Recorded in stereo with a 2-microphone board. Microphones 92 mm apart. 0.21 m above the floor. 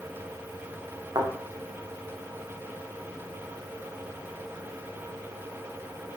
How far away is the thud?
About 4.5 m.